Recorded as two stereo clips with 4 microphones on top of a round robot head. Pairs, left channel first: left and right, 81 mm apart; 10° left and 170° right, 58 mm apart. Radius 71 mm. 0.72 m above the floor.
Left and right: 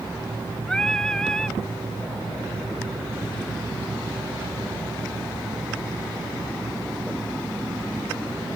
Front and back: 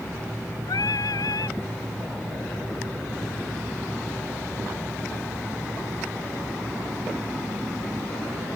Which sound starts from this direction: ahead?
Singing, at 0.7 s.